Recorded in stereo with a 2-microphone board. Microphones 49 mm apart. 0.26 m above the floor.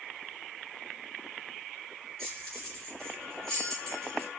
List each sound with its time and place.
2.2 s keys jangling: 10° left (ahead or behind), 2.5 m